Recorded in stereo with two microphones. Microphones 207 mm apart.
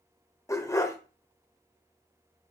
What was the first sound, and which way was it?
A dog barking, 15° left (ahead or behind).